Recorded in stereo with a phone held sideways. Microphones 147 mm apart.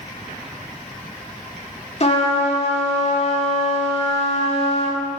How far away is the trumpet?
About 1.9 m.